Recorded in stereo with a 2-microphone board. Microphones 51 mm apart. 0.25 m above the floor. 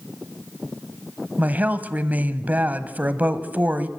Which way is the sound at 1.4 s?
30° right (ahead or behind).